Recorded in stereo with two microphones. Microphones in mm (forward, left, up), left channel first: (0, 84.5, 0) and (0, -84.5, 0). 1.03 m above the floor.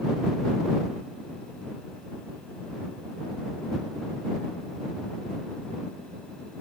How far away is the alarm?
I don't hear an alarm.